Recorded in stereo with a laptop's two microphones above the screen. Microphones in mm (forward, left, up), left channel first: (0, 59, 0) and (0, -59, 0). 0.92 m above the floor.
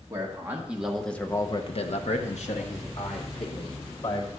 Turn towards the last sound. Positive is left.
turn(degrees=55)  # may be behind; listen again after turning